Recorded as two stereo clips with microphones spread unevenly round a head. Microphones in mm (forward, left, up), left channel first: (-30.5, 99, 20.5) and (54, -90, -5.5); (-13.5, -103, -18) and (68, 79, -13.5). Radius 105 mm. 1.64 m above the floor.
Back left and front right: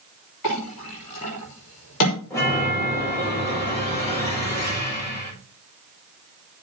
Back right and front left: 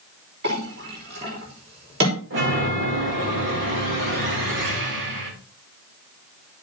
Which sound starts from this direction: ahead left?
A chime, at 2.3 s.